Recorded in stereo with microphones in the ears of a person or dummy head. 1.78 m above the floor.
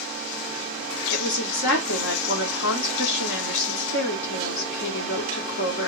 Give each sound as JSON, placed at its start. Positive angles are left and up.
{"t": 1.1, "sound": "a woman speaking", "side_deg": 65, "distance_m": 1.2}